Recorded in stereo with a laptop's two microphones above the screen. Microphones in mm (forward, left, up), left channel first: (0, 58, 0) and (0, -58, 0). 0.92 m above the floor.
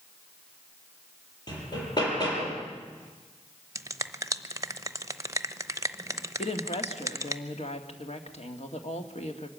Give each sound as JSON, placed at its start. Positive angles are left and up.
{"t": 1.5, "sound": "hammering", "side_deg": 35, "distance_m": 6.5}
{"t": 3.8, "sound": "a finger snap", "side_deg": -30, "distance_m": 0.8}
{"t": 6.4, "sound": "a woman speaking", "side_deg": 65, "distance_m": 2.0}